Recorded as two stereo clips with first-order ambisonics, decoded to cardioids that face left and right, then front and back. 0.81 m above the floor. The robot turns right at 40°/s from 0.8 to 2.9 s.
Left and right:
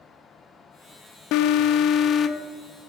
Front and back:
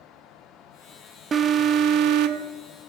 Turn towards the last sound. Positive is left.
turn(degrees=180)